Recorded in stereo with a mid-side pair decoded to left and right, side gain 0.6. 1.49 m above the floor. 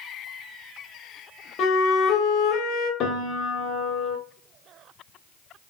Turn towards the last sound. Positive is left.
turn(degrees=50)